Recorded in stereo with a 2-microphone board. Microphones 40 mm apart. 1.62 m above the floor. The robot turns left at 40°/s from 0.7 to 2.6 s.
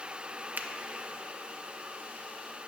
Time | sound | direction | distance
0.6 | a finger snap | 45° right (ahead or behind) | 0.6 m